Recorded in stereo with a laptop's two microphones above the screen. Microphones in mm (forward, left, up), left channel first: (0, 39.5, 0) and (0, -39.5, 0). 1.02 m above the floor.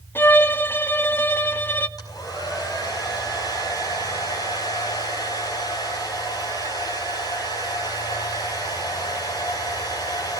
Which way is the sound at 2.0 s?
55° left (ahead or behind).